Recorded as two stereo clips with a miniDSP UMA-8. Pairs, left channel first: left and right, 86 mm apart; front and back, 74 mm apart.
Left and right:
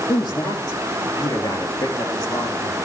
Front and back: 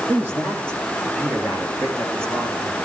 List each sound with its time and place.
0.1 s a man speaking: 120° left, 5.5 m; by 2.8 s 125° left, 7.5 m